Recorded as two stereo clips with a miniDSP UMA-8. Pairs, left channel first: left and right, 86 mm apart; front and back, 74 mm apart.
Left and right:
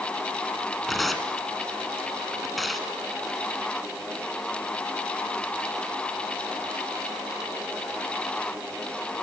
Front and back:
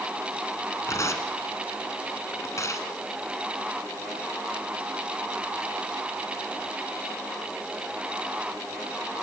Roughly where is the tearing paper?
Ahead.